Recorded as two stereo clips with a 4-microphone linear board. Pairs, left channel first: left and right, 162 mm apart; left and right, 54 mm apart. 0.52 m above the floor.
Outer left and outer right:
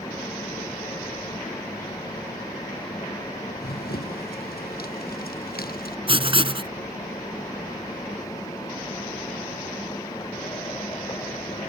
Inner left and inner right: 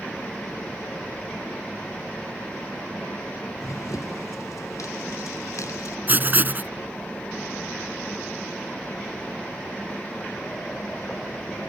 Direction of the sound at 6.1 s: 35° right (ahead or behind).